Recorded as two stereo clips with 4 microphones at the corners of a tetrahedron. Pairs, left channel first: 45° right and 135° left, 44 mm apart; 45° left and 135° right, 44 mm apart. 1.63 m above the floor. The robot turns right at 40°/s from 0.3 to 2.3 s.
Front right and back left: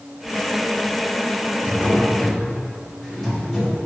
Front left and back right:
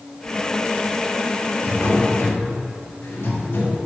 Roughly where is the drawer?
Ahead.